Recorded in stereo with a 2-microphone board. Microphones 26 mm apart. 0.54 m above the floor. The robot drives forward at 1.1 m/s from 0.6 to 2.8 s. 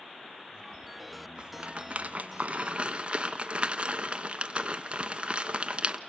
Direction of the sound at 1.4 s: 35° right (ahead or behind).